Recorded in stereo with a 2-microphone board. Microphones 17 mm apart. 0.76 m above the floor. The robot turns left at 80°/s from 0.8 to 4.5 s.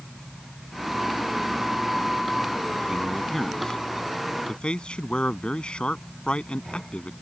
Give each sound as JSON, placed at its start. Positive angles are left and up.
{"t": 2.9, "sound": "a man speaking", "side_deg": -35}